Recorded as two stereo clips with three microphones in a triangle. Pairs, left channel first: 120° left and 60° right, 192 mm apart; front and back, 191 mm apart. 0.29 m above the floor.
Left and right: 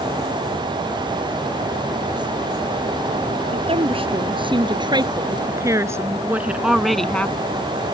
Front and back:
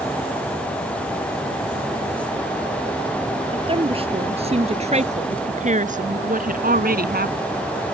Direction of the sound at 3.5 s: 120° right.